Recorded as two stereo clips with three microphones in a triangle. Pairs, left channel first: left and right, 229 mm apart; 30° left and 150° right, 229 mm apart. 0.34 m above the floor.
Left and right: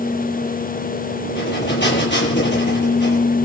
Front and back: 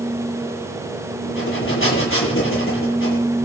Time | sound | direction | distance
1.2 | breathing | 55° left | 9 m